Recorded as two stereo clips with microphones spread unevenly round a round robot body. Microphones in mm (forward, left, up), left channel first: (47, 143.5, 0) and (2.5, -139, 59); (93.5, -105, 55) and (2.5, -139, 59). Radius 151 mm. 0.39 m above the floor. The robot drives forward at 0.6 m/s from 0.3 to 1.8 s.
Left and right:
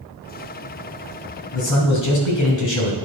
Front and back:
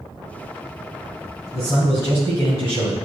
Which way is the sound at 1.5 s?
85° left.